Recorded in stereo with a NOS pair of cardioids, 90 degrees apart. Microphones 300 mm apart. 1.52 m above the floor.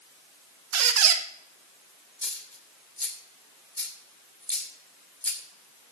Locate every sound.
0.7 s a squeak: 60° right, 1.2 m
2.2 s a dropped coin: 5° left, 2.5 m